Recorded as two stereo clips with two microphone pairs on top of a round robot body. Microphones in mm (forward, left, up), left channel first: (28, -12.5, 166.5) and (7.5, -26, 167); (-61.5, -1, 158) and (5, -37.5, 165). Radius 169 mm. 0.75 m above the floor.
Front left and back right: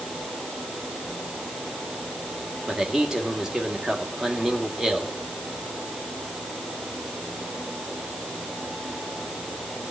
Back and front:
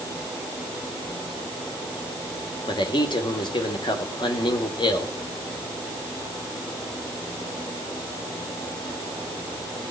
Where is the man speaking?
140° left, 3 m.